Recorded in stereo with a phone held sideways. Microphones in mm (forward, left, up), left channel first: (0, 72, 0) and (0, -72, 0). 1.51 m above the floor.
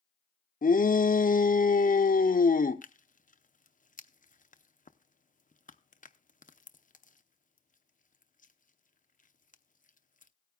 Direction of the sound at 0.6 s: 75° left (ahead or behind).